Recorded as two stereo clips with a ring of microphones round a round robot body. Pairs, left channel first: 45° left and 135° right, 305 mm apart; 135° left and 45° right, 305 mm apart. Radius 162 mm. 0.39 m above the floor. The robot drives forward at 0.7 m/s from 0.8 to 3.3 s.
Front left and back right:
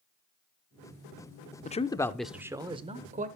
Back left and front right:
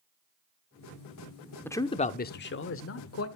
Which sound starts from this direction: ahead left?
A man speaking, at 1.6 s.